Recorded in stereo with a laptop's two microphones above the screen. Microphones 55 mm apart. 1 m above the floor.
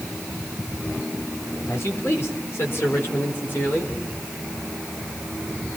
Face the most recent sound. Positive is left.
turn(degrees=40)  # may be behind; listen again after turning